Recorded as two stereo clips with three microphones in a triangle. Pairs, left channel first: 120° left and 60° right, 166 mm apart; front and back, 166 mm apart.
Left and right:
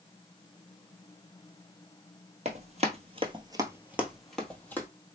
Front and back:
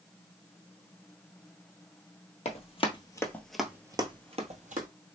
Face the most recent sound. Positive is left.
turn(degrees=-165)